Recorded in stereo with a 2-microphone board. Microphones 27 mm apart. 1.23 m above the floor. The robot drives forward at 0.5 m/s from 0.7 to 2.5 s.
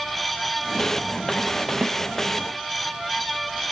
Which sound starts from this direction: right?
A snare drum, at 1.8 s.